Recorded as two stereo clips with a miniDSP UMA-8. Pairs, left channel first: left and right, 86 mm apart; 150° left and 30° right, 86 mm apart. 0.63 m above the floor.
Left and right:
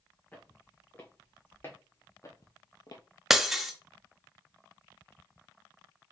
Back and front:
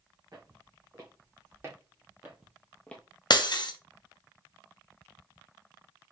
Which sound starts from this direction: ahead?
Footsteps, at 0.3 s.